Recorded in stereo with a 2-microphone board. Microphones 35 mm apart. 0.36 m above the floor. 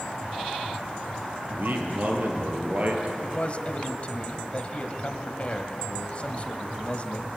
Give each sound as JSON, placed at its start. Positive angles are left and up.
{"t": 1.5, "sound": "a man speaking", "side_deg": -60, "distance_m": 7.0}
{"t": 3.2, "sound": "a man speaking", "side_deg": 40, "distance_m": 2.5}